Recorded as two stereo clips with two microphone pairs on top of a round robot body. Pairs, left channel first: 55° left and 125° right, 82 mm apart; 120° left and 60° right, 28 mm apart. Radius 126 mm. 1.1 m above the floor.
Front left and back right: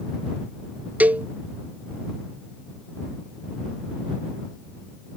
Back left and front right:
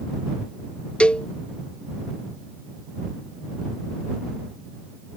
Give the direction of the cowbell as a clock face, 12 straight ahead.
6 o'clock.